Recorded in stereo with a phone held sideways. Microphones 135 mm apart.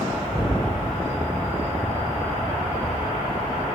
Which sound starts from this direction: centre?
An explosion, at 0.3 s.